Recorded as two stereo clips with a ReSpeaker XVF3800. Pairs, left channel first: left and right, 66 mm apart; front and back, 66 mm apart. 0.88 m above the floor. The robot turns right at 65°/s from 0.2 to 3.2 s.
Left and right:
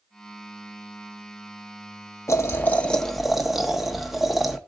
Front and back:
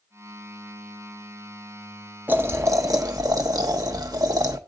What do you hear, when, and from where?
2.3 s boiling: 125° left, 1.1 m; by 4.6 s straight behind, 1.1 m